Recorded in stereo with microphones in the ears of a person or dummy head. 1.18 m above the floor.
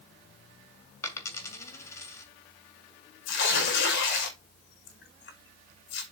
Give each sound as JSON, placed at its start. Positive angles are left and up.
{"t": 1.0, "sound": "a dropped coin", "side_deg": 15, "distance_m": 2.5}
{"t": 3.2, "sound": "tearing paper", "side_deg": 70, "distance_m": 5.5}